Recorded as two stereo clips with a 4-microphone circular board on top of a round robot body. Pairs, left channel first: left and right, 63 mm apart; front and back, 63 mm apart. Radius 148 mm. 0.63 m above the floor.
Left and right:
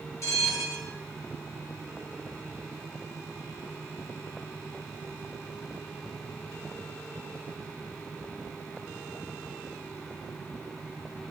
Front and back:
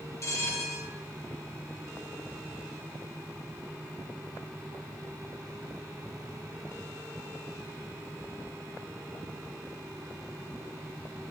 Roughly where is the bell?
Ahead left.